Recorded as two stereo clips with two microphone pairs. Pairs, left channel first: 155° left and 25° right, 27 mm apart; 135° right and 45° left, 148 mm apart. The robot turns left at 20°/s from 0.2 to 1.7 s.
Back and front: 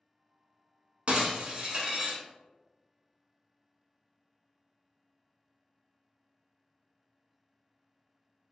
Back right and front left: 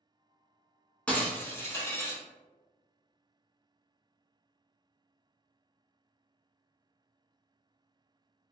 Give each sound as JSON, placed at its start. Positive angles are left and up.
{"t": 1.1, "sound": "breaking glass", "azimuth_deg": -55, "distance_m": 0.8}